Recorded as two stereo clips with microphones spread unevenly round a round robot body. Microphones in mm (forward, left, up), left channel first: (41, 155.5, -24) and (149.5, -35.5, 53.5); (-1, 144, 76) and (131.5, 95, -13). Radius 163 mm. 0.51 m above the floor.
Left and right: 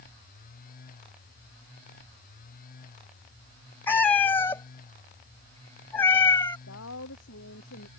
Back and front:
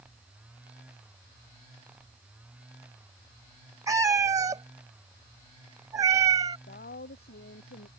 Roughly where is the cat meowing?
Ahead left.